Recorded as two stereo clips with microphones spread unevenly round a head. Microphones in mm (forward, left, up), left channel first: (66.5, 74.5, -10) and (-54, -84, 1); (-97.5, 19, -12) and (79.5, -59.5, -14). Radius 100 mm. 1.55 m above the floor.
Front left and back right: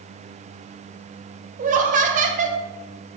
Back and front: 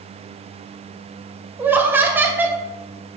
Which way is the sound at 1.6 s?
100° right.